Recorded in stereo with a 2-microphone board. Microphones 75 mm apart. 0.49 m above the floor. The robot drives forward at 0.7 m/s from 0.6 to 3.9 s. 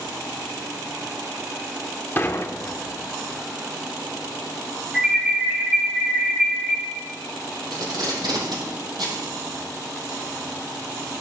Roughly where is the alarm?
Centre.